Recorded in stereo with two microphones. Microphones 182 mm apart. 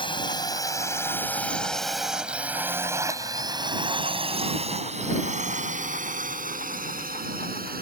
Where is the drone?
25° left (ahead or behind); by 7.8 s 55° right (ahead or behind).